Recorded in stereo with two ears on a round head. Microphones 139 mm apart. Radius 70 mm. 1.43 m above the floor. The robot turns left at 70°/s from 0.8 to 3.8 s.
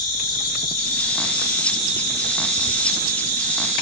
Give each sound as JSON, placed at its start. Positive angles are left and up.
{"t": 0.0, "sound": "an insect", "azimuth_deg": 70, "distance_m": 0.9}